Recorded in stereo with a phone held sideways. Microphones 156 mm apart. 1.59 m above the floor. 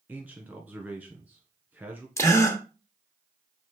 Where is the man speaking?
10° right (ahead or behind), 1.6 m.